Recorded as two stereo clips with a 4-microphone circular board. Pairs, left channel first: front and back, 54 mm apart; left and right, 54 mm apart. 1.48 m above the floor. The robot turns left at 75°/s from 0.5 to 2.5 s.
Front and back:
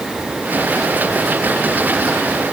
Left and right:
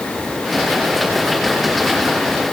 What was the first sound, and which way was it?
Only background noise.